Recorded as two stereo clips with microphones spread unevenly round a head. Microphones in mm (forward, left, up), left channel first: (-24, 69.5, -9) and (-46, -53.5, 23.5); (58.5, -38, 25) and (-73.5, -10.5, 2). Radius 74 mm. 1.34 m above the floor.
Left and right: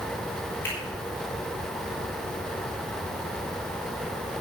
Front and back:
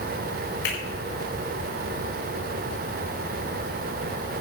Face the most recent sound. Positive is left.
turn(degrees=5)